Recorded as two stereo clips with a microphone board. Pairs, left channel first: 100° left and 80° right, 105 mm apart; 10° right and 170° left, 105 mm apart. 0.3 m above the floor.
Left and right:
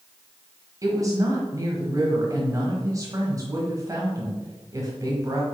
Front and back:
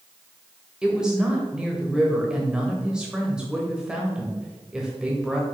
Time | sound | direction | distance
0.8 | a woman speaking | 110° right | 1.4 m